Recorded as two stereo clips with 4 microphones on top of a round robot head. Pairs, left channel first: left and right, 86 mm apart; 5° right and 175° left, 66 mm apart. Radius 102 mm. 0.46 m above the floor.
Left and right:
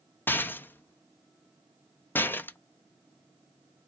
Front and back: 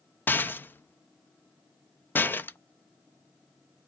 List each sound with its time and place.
0.3 s a rattle: 40° left, 0.5 m